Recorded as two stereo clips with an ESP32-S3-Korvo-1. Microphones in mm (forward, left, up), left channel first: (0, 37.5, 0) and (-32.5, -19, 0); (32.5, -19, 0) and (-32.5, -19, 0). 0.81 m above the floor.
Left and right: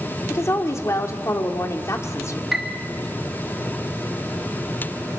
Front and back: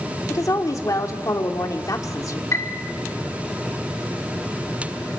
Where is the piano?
35° right, 2 m.